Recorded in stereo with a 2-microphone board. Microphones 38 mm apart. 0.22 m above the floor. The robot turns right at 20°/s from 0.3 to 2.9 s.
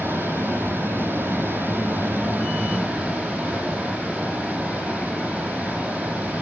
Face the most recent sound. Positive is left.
turn(degrees=-35)